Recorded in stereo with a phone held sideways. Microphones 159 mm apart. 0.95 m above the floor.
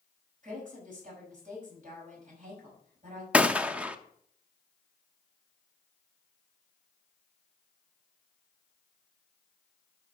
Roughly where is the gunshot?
Centre.